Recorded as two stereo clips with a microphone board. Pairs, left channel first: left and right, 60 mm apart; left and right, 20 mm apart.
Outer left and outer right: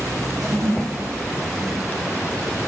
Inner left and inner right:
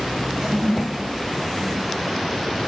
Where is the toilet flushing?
75° right (ahead or behind), 0.9 m.